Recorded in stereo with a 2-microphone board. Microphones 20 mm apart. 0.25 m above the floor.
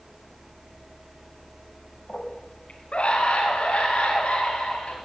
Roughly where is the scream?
Left.